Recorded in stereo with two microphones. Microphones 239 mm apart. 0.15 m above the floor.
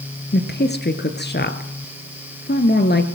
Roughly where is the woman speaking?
Left.